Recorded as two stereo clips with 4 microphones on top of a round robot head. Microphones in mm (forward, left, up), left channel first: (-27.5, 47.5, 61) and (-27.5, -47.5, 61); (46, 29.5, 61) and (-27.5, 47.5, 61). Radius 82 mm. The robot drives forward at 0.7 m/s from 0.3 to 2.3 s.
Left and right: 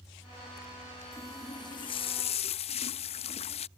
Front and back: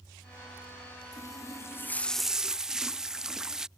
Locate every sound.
1.1 s a running tap: 25° left; by 3.7 s 85° left